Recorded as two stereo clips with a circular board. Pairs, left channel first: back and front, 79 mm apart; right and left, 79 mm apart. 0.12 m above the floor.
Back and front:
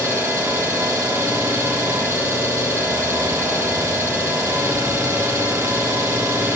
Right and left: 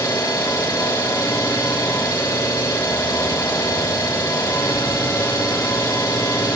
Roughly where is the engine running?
Ahead right.